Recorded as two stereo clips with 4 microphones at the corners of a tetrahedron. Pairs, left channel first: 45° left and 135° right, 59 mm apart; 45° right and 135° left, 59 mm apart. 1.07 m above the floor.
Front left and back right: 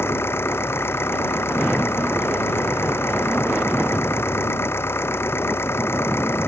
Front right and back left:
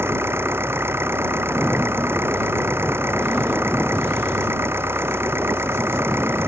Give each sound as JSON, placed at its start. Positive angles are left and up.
{"t": 0.0, "sound": "an engine running", "azimuth_deg": 90}